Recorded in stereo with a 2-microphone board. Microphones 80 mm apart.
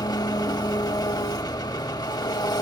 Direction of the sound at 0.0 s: 55° left (ahead or behind).